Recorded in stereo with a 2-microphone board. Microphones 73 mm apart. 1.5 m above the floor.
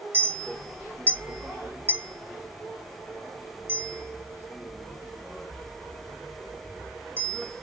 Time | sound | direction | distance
0.1 | a clink | 25° right (ahead or behind) | 0.5 m